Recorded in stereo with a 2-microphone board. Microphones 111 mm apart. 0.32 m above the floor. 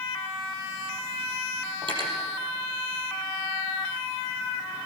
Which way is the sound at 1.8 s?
45° right (ahead or behind).